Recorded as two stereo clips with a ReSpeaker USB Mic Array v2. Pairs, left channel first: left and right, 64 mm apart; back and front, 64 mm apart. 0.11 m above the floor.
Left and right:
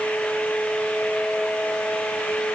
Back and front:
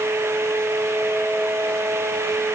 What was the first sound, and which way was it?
Only background noise.